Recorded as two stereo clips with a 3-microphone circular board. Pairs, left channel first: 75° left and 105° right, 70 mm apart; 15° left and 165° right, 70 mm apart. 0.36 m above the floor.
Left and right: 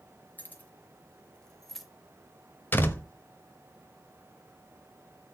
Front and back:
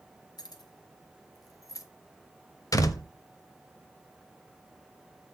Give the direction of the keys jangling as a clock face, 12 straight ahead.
12 o'clock.